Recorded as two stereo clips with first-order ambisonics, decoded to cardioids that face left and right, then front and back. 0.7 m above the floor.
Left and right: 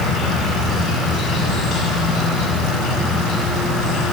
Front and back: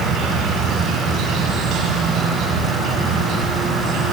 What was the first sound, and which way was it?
An insect, 140° left.